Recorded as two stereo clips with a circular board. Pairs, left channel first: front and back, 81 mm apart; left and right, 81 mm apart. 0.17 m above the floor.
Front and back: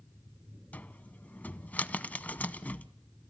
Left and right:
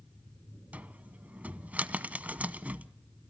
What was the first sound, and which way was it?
A cupboard door, 40° right.